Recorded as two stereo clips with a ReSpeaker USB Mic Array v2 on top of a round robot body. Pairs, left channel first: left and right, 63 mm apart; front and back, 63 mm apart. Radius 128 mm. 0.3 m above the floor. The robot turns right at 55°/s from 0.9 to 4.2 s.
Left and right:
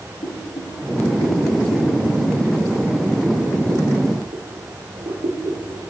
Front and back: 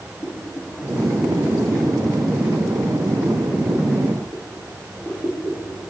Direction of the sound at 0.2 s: 70° left.